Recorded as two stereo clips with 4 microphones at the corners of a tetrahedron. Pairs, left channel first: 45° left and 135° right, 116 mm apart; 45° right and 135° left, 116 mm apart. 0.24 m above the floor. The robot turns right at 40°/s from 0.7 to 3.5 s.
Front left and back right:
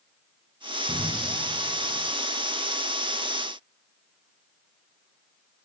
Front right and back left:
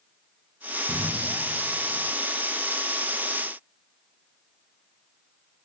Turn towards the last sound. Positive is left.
turn(degrees=85)